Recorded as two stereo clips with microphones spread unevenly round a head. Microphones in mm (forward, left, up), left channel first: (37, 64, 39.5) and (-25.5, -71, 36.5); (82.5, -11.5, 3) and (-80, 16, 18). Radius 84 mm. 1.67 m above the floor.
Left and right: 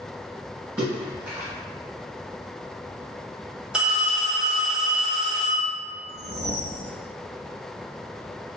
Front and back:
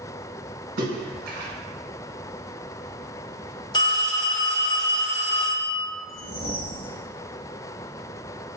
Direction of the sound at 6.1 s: 45° right.